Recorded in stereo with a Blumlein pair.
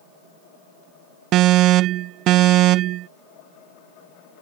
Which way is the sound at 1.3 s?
35° right.